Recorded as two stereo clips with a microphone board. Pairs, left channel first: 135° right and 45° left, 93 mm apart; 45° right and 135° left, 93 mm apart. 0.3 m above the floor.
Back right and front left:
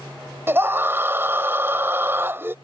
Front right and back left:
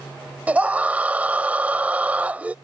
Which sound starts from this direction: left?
A scream, at 0.5 s.